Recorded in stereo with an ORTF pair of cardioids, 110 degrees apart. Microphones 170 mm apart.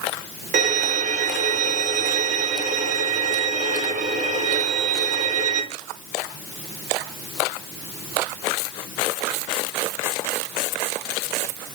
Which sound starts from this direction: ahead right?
A violin, at 0.5 s.